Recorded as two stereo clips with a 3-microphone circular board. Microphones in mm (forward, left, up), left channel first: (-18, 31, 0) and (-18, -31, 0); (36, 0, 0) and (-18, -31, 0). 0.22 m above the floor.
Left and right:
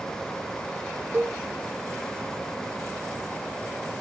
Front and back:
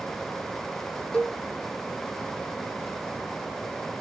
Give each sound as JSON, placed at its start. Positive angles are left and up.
{"t": 1.1, "sound": "a cowbell", "azimuth_deg": -45, "distance_m": 1.6}